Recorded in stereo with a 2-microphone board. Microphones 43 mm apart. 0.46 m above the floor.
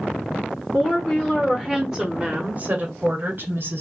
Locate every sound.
0.7 s a woman speaking: 25° left (ahead or behind), 1.2 m; by 3.8 s 55° right (ahead or behind), 1.4 m